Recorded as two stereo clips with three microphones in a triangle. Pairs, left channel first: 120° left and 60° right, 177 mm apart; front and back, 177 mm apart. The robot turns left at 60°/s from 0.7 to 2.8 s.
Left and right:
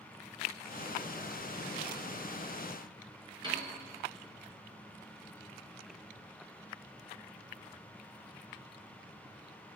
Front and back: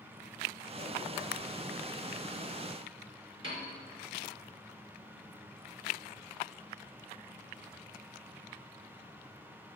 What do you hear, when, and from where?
3.4 s a piano: 120° right, 3 m